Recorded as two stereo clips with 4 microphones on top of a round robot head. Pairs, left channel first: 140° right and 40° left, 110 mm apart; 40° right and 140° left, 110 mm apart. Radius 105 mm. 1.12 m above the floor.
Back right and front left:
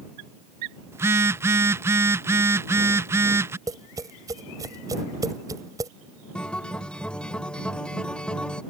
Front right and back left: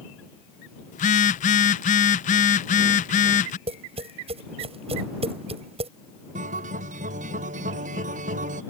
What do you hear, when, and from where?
0.9 s a phone buzzing: 30° right
3.7 s tapping: 100° left
6.3 s a guitar: 135° left